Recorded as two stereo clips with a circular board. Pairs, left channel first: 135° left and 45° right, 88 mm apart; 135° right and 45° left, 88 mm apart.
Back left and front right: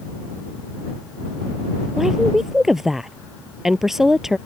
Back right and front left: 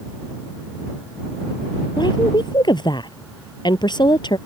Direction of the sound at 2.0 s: 130° right.